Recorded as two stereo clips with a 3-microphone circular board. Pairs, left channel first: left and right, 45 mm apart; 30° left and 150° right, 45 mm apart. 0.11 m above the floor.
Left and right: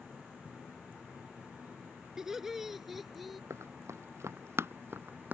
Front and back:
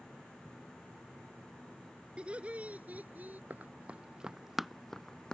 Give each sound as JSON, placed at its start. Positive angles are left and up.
{"t": 2.2, "sound": "laughter", "azimuth_deg": -155}
{"t": 3.5, "sound": "running footsteps", "azimuth_deg": -100}